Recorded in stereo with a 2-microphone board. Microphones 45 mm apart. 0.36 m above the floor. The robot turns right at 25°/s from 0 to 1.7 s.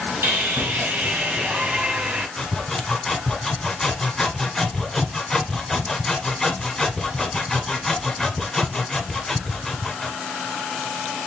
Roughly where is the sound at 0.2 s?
Right.